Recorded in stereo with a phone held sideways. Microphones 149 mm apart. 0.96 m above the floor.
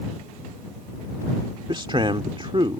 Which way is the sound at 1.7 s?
35° right (ahead or behind).